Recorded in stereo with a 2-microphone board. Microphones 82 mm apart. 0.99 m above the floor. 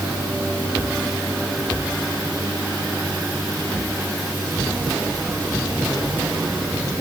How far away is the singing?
No singing in this recording.